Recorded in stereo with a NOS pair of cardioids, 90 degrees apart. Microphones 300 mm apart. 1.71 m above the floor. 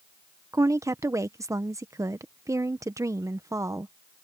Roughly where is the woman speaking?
Ahead.